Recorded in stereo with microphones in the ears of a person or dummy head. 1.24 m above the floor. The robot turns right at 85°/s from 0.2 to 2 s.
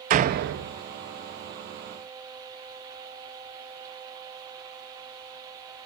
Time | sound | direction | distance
0.1 | a door slam | 140° right | 0.9 m